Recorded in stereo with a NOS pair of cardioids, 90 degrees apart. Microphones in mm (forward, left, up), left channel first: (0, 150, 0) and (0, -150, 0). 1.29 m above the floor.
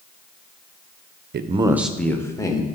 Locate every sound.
1.3 s a man speaking: 40° right, 0.5 m; by 2.7 s 15° left, 1.7 m